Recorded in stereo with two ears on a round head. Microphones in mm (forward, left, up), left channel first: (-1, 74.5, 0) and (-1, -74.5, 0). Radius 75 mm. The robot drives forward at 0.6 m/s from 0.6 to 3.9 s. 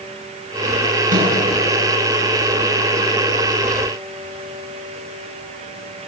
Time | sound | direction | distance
1.1 | a microwave | 55° right (ahead or behind) | 7 m